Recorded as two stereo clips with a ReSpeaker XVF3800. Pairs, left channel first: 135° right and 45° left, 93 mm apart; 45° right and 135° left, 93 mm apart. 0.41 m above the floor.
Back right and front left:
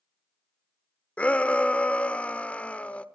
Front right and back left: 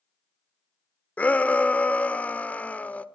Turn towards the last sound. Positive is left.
turn(degrees=-85)